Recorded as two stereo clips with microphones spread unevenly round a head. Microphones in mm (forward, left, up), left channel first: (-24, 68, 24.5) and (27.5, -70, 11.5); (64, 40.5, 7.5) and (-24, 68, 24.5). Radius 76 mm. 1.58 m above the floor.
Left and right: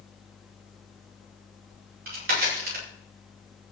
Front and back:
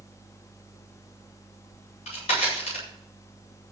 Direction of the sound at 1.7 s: 50° right.